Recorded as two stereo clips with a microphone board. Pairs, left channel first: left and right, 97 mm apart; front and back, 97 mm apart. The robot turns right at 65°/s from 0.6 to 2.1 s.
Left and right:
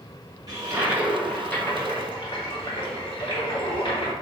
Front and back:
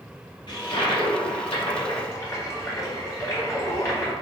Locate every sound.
0.5 s a toilet flushing: 40° right, 1.6 m; by 4.1 s 60° left, 1.6 m